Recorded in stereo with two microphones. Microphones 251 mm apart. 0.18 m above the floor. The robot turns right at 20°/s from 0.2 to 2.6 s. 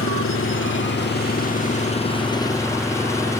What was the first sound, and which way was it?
An engine running, 120° left.